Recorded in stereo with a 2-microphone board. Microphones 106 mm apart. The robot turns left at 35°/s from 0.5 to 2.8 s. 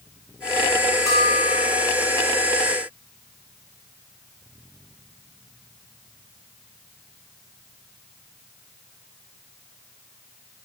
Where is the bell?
35° left (ahead or behind), 5 m; by 1.9 s 60° left (ahead or behind), 5 m.